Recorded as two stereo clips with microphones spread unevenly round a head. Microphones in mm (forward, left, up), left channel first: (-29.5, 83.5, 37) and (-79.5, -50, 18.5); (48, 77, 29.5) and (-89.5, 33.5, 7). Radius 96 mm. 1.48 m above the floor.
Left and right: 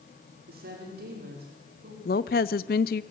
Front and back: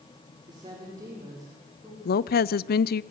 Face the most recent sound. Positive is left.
turn(degrees=30)